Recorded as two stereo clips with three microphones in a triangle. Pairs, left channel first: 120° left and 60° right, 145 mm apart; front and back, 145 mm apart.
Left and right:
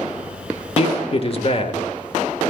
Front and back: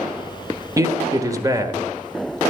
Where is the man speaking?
125° left, 1.1 m.